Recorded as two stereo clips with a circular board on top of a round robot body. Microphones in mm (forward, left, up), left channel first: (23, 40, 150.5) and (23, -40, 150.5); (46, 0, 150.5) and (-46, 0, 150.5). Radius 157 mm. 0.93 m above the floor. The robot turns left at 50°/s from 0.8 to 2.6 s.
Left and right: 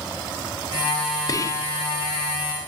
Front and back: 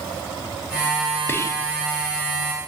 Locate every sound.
1.3 s whispering: 60° left, 0.5 m; by 1.7 s 40° left, 0.5 m